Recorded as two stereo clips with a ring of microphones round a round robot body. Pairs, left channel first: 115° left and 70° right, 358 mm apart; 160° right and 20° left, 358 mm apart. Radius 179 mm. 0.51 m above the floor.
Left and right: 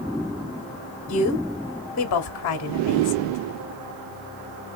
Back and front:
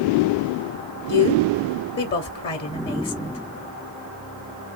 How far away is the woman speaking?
About 1.0 m.